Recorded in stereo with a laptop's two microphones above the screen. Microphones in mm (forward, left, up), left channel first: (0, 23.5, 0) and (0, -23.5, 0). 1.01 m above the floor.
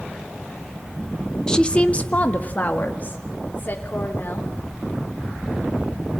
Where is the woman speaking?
15° left (ahead or behind), 0.8 m; by 4.5 s 40° left (ahead or behind), 4 m.